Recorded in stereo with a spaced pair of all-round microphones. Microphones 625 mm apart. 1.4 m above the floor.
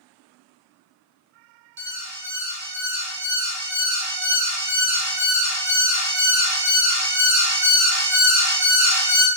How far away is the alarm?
About 0.9 m.